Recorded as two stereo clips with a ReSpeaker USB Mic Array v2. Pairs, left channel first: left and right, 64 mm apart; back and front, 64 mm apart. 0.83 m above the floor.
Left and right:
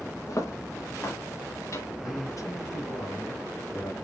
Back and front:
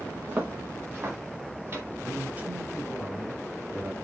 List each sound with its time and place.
0.3 s footsteps: 60° left, 4 m; by 1.9 s 50° left, 5.5 m
2.0 s a man speaking: 65° left, 3.5 m